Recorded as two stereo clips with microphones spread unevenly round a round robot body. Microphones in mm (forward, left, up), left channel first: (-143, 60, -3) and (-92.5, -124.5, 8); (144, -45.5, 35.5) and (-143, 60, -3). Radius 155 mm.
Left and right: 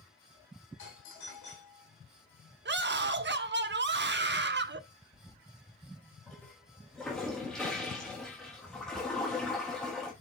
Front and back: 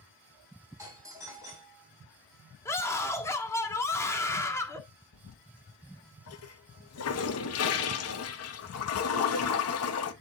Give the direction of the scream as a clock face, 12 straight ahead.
3 o'clock.